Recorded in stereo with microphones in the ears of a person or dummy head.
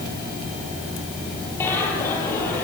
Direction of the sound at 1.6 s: 15° left (ahead or behind).